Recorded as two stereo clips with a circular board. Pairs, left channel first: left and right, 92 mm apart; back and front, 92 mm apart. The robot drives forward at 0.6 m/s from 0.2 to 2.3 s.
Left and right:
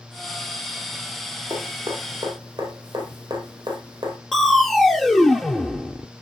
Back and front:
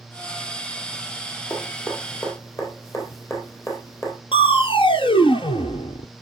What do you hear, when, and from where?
1.5 s dripping: 120° right, 3.5 m; by 4.2 s 125° right, 3.5 m
4.3 s crushing: straight behind, 0.9 m